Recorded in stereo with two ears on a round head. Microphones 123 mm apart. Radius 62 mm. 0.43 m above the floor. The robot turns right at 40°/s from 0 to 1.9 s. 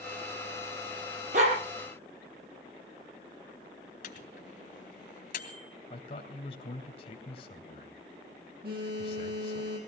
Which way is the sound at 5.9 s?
45° left (ahead or behind).